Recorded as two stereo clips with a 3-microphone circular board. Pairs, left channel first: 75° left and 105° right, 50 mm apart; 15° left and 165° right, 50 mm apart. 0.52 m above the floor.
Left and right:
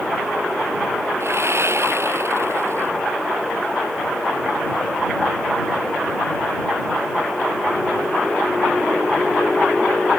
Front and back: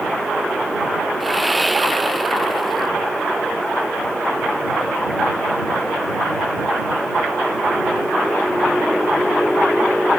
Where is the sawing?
75° right.